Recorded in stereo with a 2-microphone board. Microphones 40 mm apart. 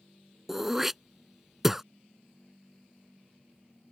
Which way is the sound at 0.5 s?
10° right (ahead or behind).